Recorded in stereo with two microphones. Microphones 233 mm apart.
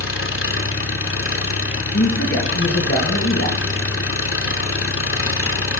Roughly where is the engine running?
Left.